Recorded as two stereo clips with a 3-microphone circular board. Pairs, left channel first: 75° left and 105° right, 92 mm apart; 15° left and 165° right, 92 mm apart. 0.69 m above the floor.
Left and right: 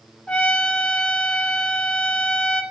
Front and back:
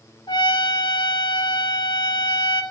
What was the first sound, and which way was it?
A trumpet, straight ahead.